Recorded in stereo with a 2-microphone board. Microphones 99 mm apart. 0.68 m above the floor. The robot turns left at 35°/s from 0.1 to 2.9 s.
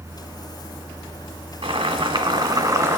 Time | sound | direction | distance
1.6 | boiling | 100° right | 1.6 m